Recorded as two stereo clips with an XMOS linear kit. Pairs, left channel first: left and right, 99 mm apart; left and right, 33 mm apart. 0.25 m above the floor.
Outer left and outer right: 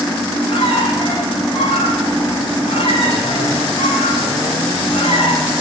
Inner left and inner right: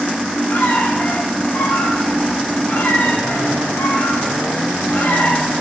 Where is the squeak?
70° left (ahead or behind), 9 m.